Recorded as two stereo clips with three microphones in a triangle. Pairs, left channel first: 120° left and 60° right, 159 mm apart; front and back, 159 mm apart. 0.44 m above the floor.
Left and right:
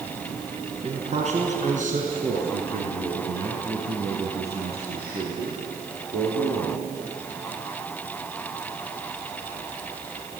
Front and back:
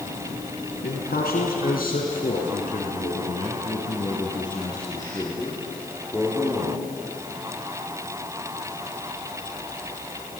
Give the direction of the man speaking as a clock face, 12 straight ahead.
12 o'clock.